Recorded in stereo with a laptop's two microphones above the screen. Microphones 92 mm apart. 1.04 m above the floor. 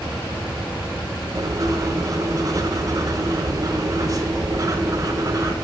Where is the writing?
40° right (ahead or behind), 0.8 m.